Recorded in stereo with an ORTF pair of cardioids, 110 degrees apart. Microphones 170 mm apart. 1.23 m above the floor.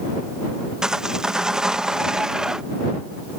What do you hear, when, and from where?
0.8 s sawing: 5° right